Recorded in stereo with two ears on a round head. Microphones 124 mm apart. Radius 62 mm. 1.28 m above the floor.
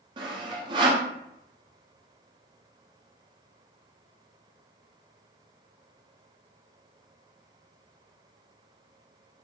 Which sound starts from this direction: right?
Sawing, at 0.2 s.